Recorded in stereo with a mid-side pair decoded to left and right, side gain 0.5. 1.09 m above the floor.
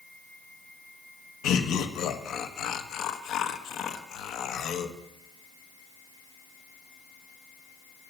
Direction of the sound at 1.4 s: 65° left.